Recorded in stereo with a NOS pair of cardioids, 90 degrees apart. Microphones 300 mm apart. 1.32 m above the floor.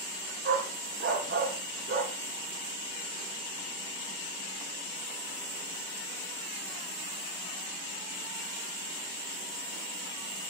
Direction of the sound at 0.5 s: 45° right.